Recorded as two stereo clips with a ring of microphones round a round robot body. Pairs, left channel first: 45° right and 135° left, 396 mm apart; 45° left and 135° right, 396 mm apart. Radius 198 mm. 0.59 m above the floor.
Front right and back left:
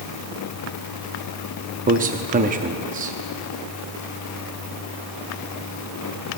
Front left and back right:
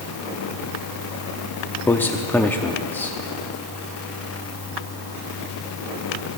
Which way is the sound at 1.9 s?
120° left.